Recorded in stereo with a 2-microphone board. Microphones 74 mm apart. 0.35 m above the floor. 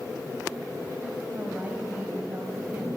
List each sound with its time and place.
1.3 s a woman speaking: 25° right (ahead or behind), 2.5 m